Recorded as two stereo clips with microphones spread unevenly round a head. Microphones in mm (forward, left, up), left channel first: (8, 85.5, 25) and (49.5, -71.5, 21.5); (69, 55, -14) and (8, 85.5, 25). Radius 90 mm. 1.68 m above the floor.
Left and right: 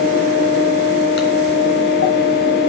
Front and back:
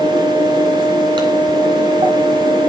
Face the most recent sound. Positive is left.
turn(degrees=125)